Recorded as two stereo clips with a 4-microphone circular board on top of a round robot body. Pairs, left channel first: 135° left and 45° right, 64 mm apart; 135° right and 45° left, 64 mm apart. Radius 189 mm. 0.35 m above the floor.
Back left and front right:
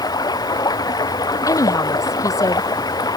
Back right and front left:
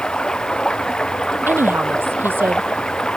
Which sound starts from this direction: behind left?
Running water, at 0.0 s.